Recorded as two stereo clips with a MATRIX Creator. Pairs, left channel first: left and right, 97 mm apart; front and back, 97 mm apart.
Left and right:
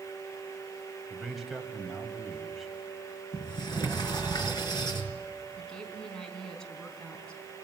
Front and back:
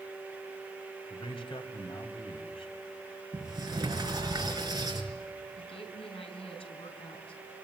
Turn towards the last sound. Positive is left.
turn(degrees=10)